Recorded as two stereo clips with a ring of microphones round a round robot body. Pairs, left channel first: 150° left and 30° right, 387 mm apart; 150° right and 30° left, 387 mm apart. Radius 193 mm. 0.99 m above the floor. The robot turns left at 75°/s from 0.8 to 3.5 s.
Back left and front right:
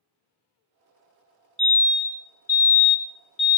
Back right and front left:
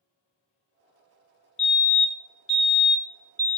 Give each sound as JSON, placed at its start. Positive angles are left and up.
{"t": 1.6, "sound": "a fire alarm", "azimuth_deg": -95, "distance_m": 1.1}